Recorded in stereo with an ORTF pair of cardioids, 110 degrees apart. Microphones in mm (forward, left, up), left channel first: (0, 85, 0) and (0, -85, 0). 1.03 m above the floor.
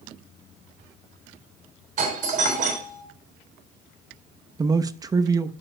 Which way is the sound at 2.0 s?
50° right.